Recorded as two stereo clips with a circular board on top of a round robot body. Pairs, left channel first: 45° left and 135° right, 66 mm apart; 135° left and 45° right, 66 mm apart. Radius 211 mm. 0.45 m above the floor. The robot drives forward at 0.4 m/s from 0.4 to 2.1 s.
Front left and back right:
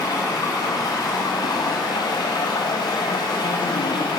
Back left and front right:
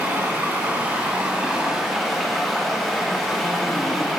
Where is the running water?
20° left, 1.2 m; by 4.2 s 45° left, 0.6 m.